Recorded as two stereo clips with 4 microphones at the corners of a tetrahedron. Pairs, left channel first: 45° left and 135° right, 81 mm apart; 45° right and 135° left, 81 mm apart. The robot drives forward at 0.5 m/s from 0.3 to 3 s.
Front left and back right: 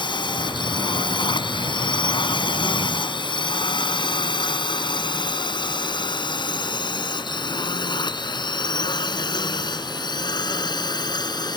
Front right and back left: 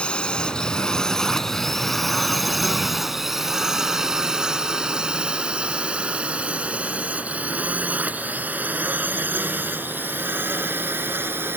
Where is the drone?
30° left; by 11.6 s 75° left.